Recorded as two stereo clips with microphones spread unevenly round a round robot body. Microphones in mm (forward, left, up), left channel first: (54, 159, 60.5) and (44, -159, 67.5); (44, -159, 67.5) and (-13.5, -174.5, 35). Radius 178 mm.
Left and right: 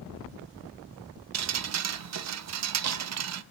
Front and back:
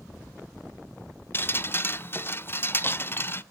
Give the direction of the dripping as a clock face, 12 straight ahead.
2 o'clock.